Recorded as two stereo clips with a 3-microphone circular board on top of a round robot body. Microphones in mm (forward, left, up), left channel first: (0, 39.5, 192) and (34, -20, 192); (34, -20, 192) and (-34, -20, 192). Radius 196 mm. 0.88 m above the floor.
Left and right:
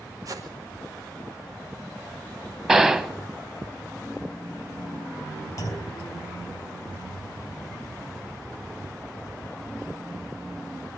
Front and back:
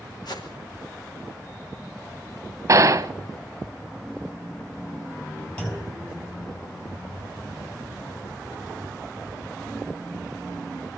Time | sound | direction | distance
0.2 | a whoosh | 20° right | 4.5 m
2.7 | a gunshot | 140° right | 1.3 m
5.6 | a clunk | 75° left | 5 m